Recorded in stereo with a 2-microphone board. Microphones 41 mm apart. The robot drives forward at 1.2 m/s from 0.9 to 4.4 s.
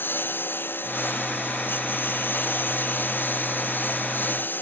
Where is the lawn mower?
50° left (ahead or behind).